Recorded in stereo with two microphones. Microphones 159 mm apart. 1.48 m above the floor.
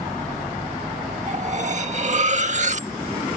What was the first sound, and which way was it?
Cutlery clinking, 50° right (ahead or behind).